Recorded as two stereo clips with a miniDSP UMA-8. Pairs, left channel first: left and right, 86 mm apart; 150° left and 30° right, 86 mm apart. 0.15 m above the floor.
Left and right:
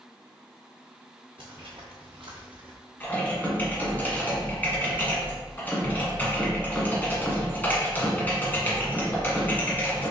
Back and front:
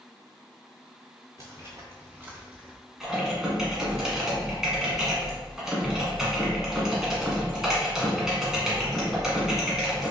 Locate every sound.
1.4 s footsteps: 85° right, 1.8 m; by 2.8 s 110° right, 1.3 m
3.0 s typing on a keyboard: 45° left, 1.2 m